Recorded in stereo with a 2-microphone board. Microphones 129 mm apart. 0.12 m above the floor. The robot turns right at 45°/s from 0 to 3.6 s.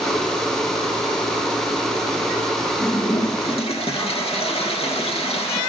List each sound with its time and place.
2.8 s a toilet flushing: 55° left, 2 m; by 5.6 s 90° left, 2 m